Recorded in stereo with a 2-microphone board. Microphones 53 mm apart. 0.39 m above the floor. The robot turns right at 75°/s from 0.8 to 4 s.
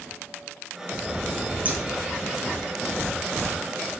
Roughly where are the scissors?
Right.